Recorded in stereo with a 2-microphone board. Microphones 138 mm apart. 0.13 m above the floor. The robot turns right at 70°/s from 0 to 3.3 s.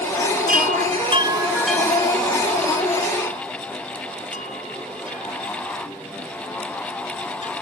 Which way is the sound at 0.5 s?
85° right.